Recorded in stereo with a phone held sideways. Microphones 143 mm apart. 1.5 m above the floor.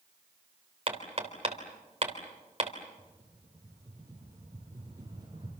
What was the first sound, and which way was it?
Hammering, 45° right (ahead or behind).